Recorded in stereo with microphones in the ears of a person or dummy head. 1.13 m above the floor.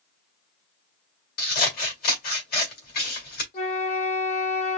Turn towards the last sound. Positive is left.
turn(degrees=35)  # may be behind; listen again after turning